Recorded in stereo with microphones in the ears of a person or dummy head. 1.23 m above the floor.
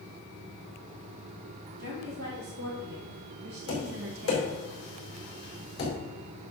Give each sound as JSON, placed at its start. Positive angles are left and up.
{"t": 1.8, "sound": "a woman speaking", "side_deg": -65, "distance_m": 3.5}
{"t": 3.7, "sound": "tapping", "side_deg": 30, "distance_m": 4.5}